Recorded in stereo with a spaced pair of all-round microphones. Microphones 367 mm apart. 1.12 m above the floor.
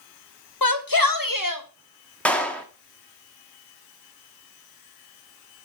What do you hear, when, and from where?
0.6 s a shout: 70° left (ahead or behind), 1.3 m; by 1.6 s 55° left (ahead or behind), 1.5 m
2.2 s a clap: 5° left (ahead or behind), 1.4 m